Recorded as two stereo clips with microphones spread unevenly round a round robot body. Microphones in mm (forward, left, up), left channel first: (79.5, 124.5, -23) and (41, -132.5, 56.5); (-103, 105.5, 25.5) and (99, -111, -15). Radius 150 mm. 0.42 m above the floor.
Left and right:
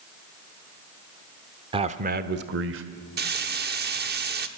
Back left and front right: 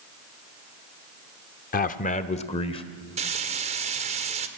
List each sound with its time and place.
1.7 s a man speaking: 175° left, 0.9 m; by 2.8 s 150° right, 1.5 m
3.2 s frying: 55° right, 1.5 m